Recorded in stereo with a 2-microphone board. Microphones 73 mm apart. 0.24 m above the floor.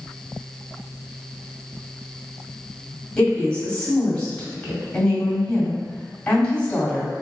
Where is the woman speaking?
10° left (ahead or behind), 1.6 m.